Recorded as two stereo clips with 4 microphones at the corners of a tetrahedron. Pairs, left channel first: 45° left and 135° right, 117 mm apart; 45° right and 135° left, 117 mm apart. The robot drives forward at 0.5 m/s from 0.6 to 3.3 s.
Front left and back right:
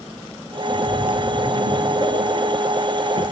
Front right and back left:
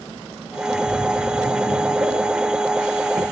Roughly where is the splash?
Behind right.